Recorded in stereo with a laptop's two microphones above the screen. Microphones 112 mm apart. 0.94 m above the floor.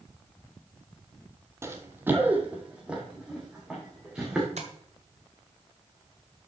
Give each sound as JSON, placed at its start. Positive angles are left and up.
{"t": 1.6, "sound": "running footsteps", "side_deg": -25, "distance_m": 1.1}
{"t": 4.6, "sound": "tapping", "side_deg": -75, "distance_m": 1.7}